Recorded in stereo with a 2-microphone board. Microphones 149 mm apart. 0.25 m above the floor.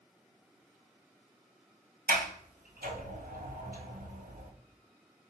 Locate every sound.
2.1 s a sliding door: 80° right, 1.5 m